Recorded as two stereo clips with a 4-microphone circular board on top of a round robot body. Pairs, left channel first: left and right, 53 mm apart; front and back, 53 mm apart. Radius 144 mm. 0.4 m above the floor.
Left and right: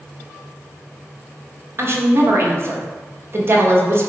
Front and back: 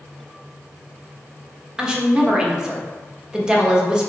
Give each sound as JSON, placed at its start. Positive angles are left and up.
{"t": 1.8, "sound": "a woman speaking", "azimuth_deg": -110, "distance_m": 1.6}